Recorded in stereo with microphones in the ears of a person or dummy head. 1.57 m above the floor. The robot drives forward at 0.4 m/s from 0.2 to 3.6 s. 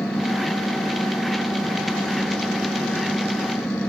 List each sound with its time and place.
0.0 s an engine running: 5° left (ahead or behind)